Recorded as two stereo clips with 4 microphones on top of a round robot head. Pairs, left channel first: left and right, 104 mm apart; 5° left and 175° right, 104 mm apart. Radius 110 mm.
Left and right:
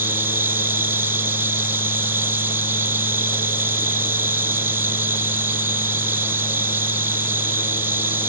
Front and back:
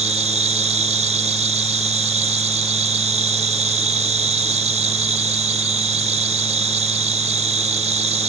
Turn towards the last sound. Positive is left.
turn(degrees=-165)